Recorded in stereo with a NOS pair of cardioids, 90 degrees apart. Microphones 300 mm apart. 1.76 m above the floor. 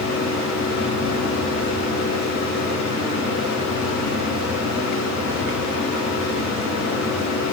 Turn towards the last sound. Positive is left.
turn(degrees=65)